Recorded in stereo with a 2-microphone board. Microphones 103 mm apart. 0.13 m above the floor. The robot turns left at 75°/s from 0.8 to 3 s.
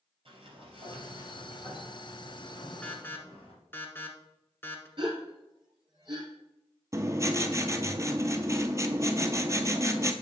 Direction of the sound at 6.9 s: 30° right (ahead or behind).